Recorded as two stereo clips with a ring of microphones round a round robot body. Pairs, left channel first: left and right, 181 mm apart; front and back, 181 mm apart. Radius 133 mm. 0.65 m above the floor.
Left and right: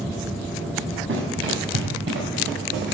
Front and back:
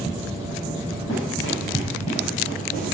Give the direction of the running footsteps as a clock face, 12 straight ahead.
2 o'clock.